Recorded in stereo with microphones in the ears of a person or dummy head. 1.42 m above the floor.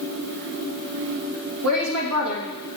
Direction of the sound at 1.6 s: 75° right (ahead or behind).